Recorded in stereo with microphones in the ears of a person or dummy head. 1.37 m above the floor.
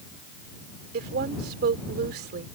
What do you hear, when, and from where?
0.9 s a woman speaking: 60° right (ahead or behind)